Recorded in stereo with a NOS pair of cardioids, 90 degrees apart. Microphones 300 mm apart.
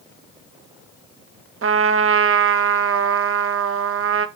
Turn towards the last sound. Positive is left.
turn(degrees=-45)